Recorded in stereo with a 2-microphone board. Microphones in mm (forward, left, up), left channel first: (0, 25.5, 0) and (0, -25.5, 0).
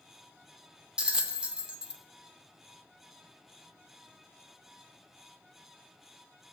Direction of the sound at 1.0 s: 20° right (ahead or behind).